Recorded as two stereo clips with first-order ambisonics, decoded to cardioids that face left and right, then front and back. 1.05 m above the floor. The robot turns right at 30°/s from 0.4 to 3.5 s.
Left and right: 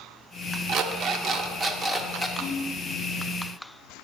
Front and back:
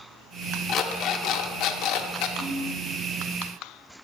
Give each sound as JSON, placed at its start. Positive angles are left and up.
{"t": 0.7, "sound": "an alarm clock", "azimuth_deg": -55, "distance_m": 0.5}
{"t": 2.4, "sound": "a ringtone", "azimuth_deg": -130, "distance_m": 3.0}